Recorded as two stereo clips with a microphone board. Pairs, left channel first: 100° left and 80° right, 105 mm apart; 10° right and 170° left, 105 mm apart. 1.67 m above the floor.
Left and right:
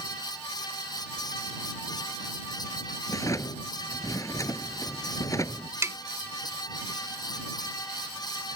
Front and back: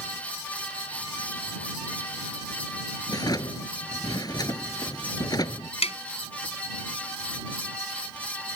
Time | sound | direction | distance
3.1 | a drawer | 40° left | ?
5.8 | tapping | 15° right | ?